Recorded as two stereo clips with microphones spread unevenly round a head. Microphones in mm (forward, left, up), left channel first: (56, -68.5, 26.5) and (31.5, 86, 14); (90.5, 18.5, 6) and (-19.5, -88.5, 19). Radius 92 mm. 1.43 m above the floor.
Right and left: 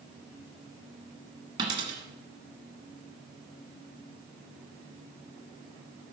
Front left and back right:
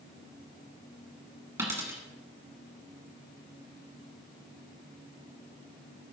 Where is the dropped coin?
160° left, 1.6 m.